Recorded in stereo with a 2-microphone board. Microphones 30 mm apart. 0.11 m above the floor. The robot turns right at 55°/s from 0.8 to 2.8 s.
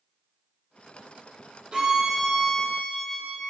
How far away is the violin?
About 4 m.